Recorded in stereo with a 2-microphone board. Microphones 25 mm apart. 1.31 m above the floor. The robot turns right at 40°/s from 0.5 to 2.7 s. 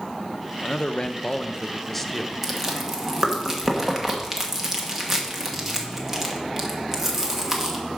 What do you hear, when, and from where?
0.6 s a man speaking: 120° left, 0.7 m; by 2.3 s 170° right, 0.7 m
2.4 s chewing: 10° right (ahead or behind), 1.4 m; by 7.8 s 20° right (ahead or behind), 1.4 m